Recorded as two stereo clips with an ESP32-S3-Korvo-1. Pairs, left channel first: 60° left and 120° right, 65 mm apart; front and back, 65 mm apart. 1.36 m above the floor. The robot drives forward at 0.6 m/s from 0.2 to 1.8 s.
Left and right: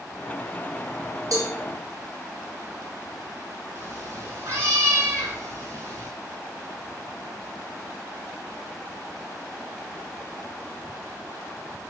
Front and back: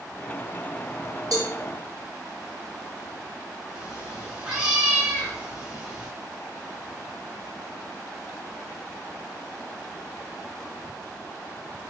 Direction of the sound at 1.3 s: 155° right.